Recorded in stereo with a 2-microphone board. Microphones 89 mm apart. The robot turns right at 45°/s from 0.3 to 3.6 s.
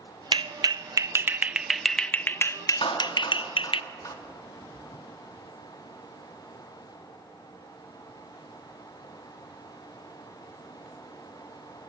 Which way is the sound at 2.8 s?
75° left (ahead or behind).